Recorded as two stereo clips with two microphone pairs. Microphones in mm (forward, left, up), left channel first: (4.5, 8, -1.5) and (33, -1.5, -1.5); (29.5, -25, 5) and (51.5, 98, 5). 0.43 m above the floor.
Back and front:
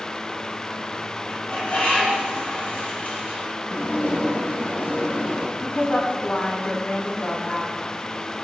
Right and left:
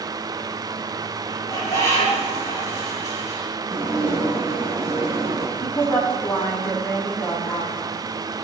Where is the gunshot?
No gunshot in this recording.